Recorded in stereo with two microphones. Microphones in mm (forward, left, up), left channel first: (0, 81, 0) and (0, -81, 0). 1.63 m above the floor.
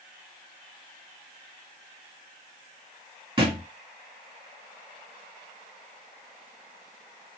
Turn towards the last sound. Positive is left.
turn(degrees=-30)  # may be behind; listen again after turning